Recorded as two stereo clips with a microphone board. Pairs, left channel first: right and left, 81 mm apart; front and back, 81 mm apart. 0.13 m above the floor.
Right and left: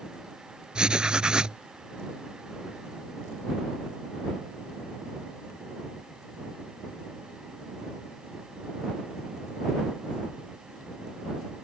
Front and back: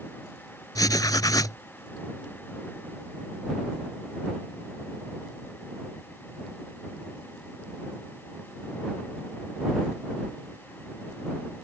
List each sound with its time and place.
0.8 s writing: 15° left